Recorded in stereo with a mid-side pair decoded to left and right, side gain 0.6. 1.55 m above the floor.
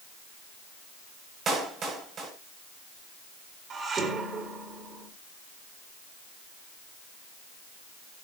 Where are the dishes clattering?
40° right, 3.5 m.